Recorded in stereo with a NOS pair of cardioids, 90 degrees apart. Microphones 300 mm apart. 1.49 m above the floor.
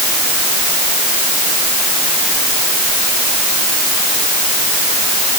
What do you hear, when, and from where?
Only background noise.